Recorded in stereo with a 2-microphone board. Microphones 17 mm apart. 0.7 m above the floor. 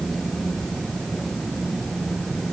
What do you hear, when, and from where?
Only background noise.